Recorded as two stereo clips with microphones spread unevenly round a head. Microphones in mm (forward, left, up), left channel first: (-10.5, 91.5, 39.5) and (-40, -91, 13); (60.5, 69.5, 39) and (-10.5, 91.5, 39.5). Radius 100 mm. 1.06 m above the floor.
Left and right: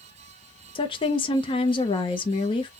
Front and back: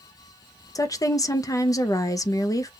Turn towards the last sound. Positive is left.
turn(degrees=15)